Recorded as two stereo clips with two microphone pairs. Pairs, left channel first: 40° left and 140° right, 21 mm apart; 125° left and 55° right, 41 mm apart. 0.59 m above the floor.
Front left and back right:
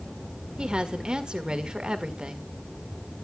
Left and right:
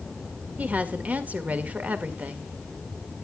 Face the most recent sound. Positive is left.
turn(degrees=-100)